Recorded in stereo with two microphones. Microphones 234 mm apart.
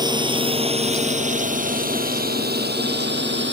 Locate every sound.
0.0 s a drone: 20° right (ahead or behind); by 3.5 s 50° right (ahead or behind)